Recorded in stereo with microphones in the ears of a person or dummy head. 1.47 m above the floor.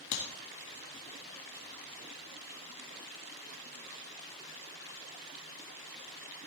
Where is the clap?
65° left (ahead or behind), 1.5 m.